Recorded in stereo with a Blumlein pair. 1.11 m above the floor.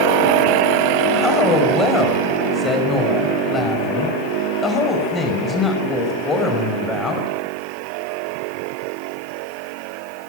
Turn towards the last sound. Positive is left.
turn(degrees=15)